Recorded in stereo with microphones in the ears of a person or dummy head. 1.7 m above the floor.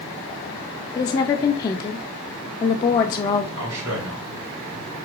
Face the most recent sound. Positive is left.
turn(degrees=-70)  # may be behind; listen again after turning